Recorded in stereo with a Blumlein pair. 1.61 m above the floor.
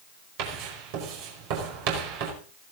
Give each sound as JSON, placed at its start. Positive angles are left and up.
{"t": 0.4, "sound": "writing", "azimuth_deg": -45, "distance_m": 5.0}